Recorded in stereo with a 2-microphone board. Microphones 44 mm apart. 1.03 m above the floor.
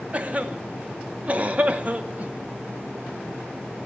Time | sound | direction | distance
0.1 | a cough | 35° right (ahead or behind) | 0.9 m